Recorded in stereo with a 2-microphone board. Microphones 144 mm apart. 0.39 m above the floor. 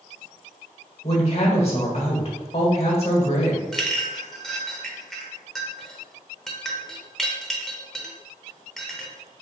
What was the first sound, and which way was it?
A woman speaking, 45° left (ahead or behind).